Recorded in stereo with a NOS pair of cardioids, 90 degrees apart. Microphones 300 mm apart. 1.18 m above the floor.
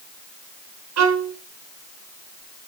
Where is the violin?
65° right, 4.5 m.